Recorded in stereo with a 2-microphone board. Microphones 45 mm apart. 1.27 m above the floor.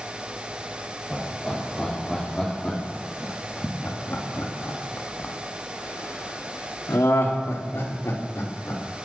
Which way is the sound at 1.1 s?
5° left (ahead or behind).